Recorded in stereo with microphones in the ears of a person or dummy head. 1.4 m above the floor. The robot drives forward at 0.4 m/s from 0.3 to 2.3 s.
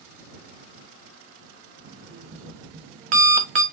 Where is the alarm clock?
45° right (ahead or behind), 1.0 m; by 3.6 s 40° right (ahead or behind), 1.1 m.